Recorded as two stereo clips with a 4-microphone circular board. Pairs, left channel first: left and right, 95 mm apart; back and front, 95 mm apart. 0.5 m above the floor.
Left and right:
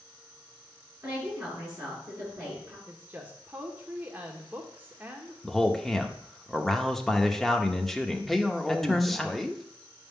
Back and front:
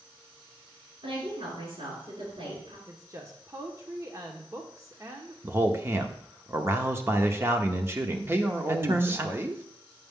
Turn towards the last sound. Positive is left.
turn(degrees=0)